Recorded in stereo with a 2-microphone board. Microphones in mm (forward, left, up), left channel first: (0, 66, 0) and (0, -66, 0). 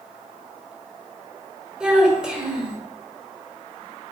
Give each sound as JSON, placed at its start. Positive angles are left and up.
{"t": 1.8, "sound": "a child speaking", "side_deg": -5, "distance_m": 1.5}